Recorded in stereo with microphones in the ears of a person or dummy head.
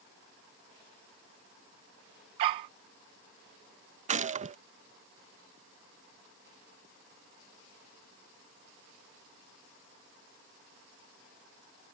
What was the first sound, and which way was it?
A dog barking, 20° right (ahead or behind).